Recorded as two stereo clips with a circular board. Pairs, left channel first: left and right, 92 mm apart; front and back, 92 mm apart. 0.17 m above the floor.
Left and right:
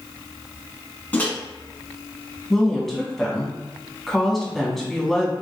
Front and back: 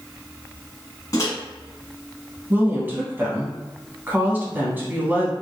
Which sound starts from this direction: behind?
A woman speaking, at 2.5 s.